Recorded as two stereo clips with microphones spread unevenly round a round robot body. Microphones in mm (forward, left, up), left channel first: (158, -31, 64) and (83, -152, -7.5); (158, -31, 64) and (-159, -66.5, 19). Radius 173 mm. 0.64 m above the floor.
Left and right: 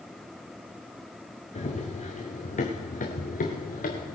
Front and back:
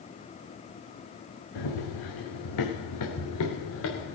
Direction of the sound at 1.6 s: 30° left.